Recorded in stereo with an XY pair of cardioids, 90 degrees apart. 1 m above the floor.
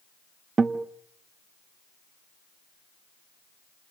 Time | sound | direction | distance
0.6 | a guitar | 40° right | 1.1 m